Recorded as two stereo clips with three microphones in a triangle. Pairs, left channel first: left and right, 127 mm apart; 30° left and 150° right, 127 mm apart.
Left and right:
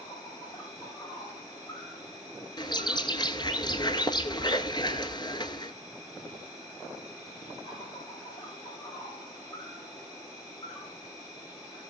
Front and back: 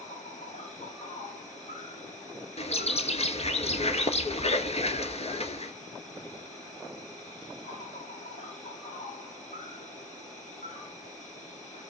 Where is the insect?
30° left, 8 m.